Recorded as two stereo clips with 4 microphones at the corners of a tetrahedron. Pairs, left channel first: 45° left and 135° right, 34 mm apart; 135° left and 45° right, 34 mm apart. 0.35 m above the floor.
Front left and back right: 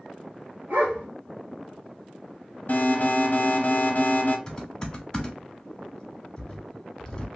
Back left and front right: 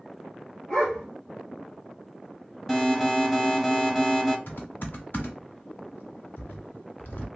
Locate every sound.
0.7 s a dog barking: 155° right, 1.8 m
2.7 s an alarm: 60° left, 1.0 m
4.5 s typing on a keyboard: 115° left, 1.1 m